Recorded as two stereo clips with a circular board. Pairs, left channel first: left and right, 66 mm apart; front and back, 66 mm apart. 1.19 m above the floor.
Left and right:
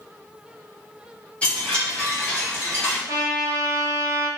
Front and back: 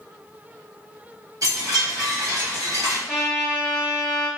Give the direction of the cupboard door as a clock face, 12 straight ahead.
I don't hear a cupboard door.